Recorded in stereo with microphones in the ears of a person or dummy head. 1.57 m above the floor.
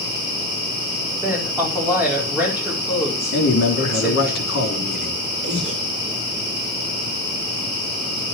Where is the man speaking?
60° left (ahead or behind), 3.5 m.